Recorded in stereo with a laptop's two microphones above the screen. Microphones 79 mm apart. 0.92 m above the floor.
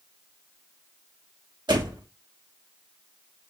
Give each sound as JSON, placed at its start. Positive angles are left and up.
{"t": 1.7, "sound": "a door slam", "side_deg": -70, "distance_m": 1.0}